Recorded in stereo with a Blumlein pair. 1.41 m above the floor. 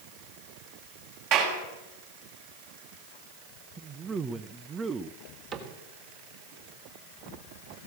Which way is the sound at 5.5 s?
30° right.